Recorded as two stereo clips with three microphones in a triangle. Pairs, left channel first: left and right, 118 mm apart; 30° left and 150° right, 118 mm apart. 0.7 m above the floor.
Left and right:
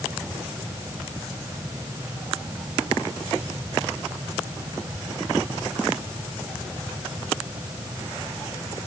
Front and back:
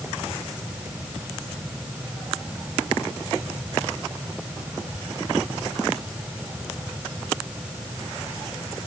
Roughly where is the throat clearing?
No throat clearing in this recording.